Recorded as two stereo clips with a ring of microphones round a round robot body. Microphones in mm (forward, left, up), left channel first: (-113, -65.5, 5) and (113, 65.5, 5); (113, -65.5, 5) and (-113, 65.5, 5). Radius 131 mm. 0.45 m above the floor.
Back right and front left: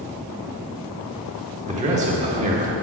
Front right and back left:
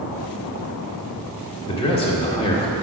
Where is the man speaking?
10° left, 1.3 m.